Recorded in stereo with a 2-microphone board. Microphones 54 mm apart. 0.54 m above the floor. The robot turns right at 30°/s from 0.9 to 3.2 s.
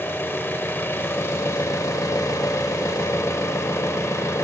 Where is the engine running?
45° left, 0.8 m; by 4.4 s 115° left, 0.8 m.